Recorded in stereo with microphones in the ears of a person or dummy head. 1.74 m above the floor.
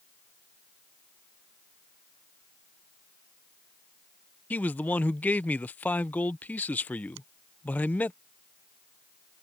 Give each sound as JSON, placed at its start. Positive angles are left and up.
{"t": 4.5, "sound": "a man speaking", "side_deg": 5}
{"t": 7.2, "sound": "a finger snap", "side_deg": -80}